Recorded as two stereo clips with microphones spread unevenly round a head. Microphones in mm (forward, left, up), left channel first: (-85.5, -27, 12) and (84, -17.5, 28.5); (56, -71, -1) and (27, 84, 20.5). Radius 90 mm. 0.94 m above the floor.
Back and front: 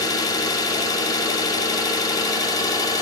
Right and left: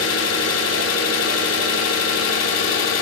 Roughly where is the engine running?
Right.